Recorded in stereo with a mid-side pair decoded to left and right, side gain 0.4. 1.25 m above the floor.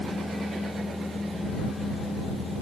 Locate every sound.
0.0 s a machine running: 15° left